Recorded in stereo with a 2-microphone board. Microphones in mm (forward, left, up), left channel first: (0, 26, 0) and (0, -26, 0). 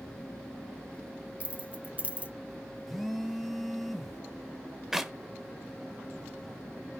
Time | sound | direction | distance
1.4 | keys jangling | 25° right (ahead or behind) | 1.1 m
2.9 | a phone buzzing | centre (ahead or behind) | 1.2 m
4.9 | a clap | 10° right (ahead or behind) | 1.1 m